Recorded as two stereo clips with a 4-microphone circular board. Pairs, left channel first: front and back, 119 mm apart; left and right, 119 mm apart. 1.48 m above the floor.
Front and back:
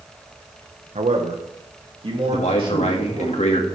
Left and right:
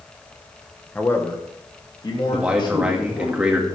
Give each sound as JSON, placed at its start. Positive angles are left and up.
{"t": 0.9, "sound": "a man speaking", "azimuth_deg": 165, "distance_m": 1.2}
{"t": 2.3, "sound": "a man speaking", "azimuth_deg": -10, "distance_m": 1.9}